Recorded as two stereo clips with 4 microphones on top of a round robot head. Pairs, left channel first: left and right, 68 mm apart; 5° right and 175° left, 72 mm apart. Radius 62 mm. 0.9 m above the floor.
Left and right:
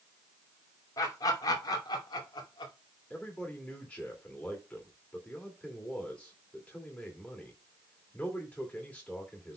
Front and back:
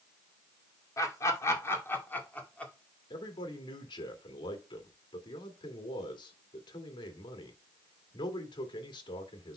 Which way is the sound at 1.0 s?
40° left.